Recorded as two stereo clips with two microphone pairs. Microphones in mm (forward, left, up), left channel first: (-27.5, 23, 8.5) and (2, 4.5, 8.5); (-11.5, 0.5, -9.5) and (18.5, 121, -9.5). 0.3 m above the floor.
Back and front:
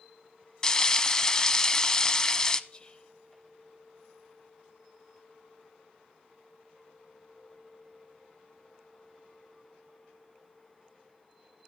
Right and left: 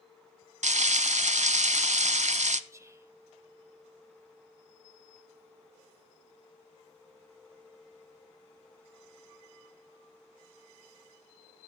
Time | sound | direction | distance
0.6 | frying | 80° left | 1.0 m
2.7 | whispering | 115° left | 1.1 m